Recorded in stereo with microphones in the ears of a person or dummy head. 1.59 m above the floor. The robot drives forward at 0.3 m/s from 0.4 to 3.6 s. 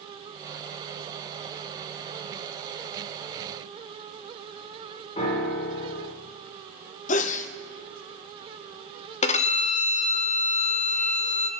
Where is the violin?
40° left (ahead or behind), 1.0 m.